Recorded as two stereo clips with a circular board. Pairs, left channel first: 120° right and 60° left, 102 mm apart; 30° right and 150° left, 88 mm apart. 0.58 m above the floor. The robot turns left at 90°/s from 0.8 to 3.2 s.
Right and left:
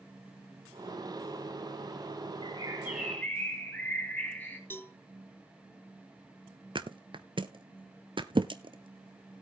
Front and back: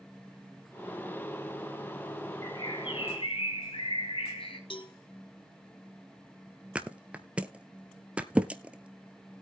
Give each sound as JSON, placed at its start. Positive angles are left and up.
{"t": 2.4, "sound": "a bird", "azimuth_deg": 25, "distance_m": 3.0}
{"t": 4.7, "sound": "a cowbell", "azimuth_deg": -50, "distance_m": 1.1}
{"t": 6.8, "sound": "a thud", "azimuth_deg": 75, "distance_m": 0.8}